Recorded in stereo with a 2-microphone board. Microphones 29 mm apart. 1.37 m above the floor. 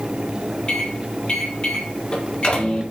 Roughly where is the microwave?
Left.